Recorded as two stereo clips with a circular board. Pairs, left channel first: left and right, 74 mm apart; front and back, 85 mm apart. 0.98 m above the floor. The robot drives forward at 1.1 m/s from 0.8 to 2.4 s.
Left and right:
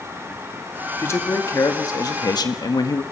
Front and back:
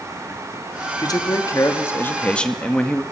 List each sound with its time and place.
1.0 s a man speaking: 40° left, 2.5 m; by 3.0 s 80° left, 1.7 m